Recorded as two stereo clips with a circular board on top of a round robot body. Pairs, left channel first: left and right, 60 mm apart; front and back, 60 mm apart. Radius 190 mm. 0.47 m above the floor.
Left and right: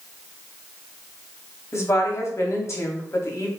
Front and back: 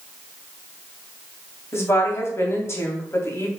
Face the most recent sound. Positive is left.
turn(degrees=45)